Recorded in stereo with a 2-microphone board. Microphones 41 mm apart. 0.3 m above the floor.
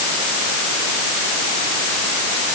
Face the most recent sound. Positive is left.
No sound to turn to.